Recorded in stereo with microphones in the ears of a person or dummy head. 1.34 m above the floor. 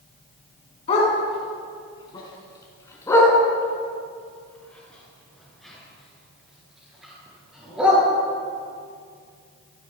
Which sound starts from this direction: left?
A dog barking, at 0.9 s.